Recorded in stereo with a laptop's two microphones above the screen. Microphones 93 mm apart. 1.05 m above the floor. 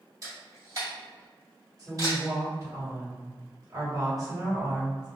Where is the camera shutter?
40° right (ahead or behind), 1.5 m.